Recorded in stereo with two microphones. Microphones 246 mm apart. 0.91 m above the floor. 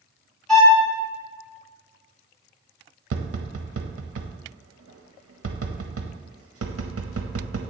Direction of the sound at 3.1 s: 65° right (ahead or behind).